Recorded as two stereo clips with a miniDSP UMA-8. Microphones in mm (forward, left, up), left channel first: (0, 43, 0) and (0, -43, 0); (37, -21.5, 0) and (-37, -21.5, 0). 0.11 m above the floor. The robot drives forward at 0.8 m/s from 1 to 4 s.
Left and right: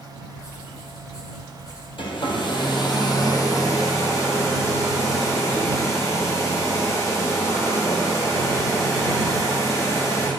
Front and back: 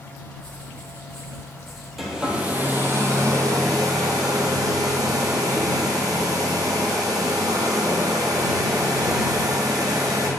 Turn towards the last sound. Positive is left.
turn(degrees=145)